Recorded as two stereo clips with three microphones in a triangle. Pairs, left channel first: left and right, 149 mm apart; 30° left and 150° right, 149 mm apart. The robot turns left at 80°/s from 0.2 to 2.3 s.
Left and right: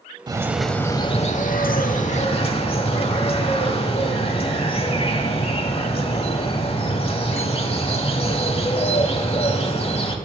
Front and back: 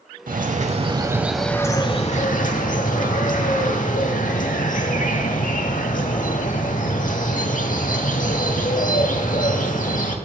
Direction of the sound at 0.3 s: 150° right.